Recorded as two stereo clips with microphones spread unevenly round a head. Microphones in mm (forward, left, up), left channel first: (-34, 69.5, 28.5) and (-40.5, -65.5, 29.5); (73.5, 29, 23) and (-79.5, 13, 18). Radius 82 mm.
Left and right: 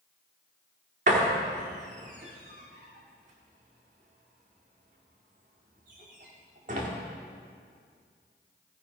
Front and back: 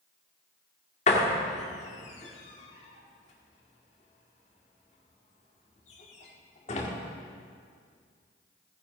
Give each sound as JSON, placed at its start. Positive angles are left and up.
{"t": 1.1, "sound": "a door slam", "azimuth_deg": -45, "distance_m": 1.7}